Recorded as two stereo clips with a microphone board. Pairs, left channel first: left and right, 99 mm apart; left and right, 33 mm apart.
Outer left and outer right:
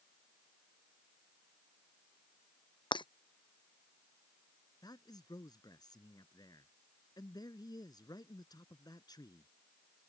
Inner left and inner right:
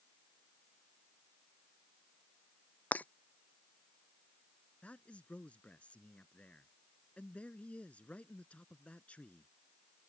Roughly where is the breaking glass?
Left.